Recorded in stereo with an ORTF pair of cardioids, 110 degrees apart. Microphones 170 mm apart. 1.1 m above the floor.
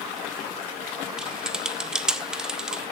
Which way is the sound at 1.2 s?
5° right.